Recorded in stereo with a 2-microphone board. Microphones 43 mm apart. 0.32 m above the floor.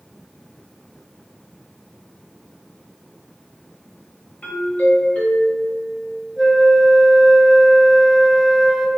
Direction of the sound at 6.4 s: 5° left (ahead or behind).